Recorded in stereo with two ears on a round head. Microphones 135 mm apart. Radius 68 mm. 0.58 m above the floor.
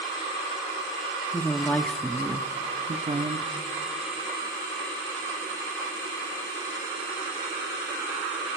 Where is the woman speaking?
20° left (ahead or behind), 1.0 m; by 3.5 s 35° right (ahead or behind), 1.3 m.